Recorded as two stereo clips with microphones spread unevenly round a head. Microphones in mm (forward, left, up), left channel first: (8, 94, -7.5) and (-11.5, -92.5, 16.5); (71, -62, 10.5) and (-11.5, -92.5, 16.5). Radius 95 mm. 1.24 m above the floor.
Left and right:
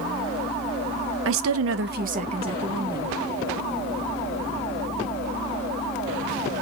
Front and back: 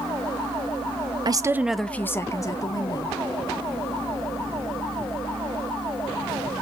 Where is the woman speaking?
120° right, 1.0 m; by 3.2 s 20° right, 3 m.